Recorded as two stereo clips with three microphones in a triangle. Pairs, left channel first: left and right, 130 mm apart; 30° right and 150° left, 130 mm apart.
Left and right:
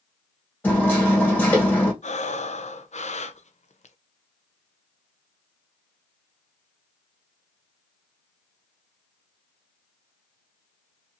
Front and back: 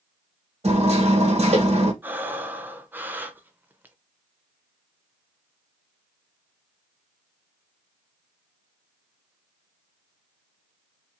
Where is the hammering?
165° left, 1.8 m.